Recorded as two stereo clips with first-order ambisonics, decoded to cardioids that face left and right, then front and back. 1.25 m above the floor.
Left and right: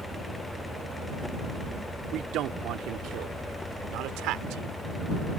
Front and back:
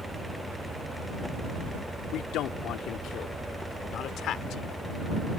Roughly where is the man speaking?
Ahead right.